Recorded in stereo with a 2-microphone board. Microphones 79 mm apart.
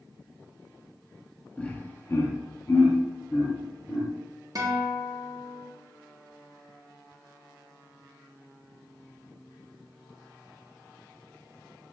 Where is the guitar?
45° right (ahead or behind), 0.7 m.